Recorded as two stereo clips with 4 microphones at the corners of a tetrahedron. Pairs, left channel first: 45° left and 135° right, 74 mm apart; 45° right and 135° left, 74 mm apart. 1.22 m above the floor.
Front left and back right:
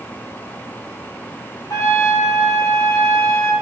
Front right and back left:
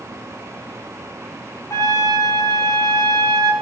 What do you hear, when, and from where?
1.7 s a trumpet: 5° left, 4.5 m